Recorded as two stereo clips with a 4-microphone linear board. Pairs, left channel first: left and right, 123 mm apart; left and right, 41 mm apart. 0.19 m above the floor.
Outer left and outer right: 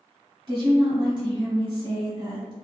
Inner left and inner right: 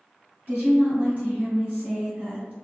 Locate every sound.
0.5 s a woman speaking: 45° right (ahead or behind), 1.5 m